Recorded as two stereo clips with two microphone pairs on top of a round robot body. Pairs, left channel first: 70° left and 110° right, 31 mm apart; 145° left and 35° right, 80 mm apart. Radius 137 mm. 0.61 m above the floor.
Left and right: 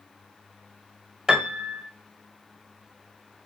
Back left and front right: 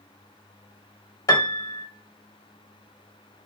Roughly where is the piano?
Behind.